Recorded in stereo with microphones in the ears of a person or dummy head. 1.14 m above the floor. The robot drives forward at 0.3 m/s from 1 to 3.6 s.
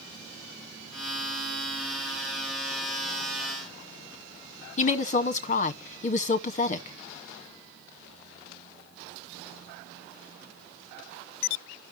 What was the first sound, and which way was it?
A woman speaking, 30° left (ahead or behind).